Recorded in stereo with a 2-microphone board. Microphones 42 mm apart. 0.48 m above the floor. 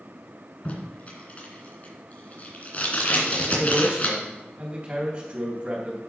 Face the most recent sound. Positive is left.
turn(degrees=-35)  # may be behind; listen again after turning